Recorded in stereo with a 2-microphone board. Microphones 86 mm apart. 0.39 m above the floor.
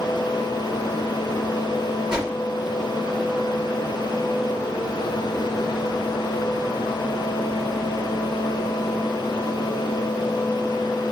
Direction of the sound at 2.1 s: 10° right (ahead or behind).